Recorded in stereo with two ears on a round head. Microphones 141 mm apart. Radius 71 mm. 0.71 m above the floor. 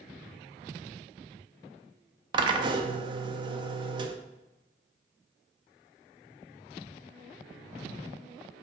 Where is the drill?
30° right (ahead or behind), 0.6 m.